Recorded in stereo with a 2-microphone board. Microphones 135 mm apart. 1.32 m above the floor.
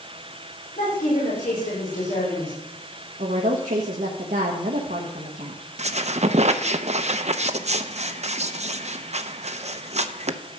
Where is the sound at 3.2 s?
75° right (ahead or behind), 1.4 m.